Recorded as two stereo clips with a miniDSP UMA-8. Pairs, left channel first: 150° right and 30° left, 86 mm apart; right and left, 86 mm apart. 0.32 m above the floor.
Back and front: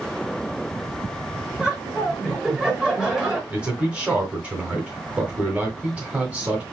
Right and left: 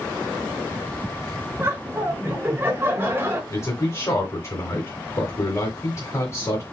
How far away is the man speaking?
About 1.4 m.